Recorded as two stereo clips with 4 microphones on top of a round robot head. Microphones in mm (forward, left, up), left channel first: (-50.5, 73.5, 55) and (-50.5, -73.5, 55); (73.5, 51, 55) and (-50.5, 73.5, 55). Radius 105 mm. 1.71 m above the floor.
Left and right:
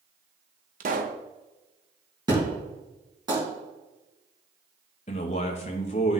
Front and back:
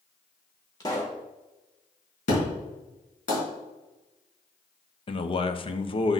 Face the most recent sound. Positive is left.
turn(degrees=35)